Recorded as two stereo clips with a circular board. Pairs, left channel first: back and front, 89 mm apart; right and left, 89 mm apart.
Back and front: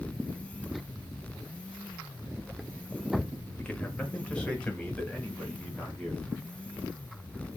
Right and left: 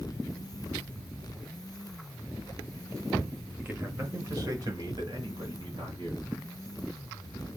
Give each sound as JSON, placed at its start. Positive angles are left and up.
{"t": 3.6, "sound": "a man speaking", "azimuth_deg": 125, "distance_m": 0.9}